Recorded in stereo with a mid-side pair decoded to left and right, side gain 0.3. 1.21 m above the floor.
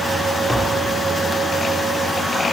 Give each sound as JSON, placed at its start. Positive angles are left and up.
{"t": 0.5, "sound": "tapping", "azimuth_deg": 20, "distance_m": 1.8}